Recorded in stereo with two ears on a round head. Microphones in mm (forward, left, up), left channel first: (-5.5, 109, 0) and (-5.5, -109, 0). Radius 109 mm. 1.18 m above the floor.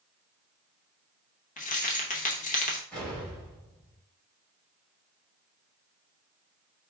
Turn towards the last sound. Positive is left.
turn(degrees=5)  # may be behind; listen again after turning